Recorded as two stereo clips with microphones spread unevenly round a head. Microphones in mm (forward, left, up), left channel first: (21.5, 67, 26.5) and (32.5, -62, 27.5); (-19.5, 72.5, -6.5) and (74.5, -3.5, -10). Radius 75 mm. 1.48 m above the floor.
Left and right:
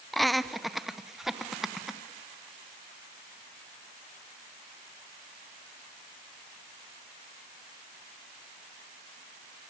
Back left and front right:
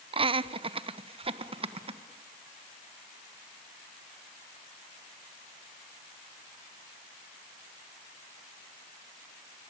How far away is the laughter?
About 0.8 m.